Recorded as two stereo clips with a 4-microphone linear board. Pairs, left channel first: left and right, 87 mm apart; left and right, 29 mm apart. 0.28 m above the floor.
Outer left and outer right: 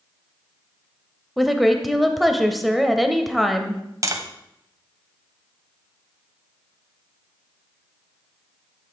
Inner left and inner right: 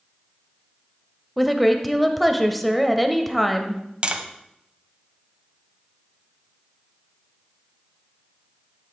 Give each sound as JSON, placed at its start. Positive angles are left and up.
{"t": 1.4, "sound": "a woman speaking", "side_deg": 0, "distance_m": 0.9}
{"t": 4.0, "sound": "tapping", "side_deg": -40, "distance_m": 1.0}